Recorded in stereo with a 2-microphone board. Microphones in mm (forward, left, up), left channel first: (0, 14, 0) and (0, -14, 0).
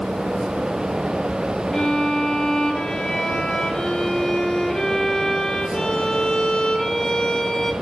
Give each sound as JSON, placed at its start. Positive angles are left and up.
{"t": 1.7, "sound": "a violin", "side_deg": 25, "distance_m": 1.8}